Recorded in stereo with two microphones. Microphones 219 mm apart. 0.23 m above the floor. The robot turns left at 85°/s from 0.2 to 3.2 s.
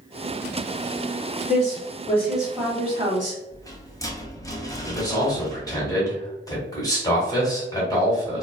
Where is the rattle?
15° left (ahead or behind), 0.6 m.